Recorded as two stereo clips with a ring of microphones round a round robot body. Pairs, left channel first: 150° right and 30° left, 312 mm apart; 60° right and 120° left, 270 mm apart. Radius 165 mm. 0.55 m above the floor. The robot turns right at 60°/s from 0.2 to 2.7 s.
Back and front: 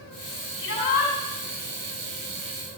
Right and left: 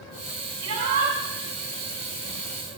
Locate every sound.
0.6 s a shout: 155° left, 5.5 m; by 1.1 s 175° right, 5.5 m